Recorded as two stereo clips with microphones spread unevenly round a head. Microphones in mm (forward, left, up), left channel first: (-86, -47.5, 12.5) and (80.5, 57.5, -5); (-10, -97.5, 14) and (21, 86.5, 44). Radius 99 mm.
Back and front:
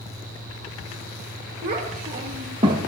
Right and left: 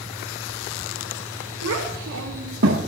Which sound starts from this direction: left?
A child speaking, at 1.6 s.